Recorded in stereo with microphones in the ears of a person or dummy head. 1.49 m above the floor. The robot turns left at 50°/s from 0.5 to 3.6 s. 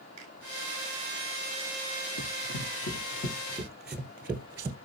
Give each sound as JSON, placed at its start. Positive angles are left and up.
{"t": 0.2, "sound": "a finger snap", "side_deg": -75, "distance_m": 7.5}
{"t": 2.2, "sound": "running footsteps", "side_deg": 50, "distance_m": 2.5}